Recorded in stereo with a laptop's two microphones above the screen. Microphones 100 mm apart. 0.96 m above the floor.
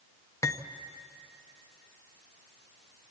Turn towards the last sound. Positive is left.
turn(degrees=30)  # may be behind; listen again after turning